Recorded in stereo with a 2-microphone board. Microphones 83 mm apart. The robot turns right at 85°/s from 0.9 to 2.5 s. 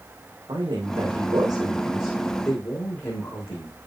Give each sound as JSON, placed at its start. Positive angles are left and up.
{"t": 0.5, "sound": "a man speaking", "azimuth_deg": -100, "distance_m": 6.5}